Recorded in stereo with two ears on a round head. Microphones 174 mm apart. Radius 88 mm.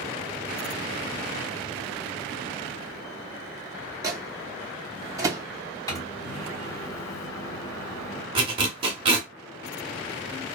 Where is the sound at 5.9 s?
15° left (ahead or behind), 0.8 m.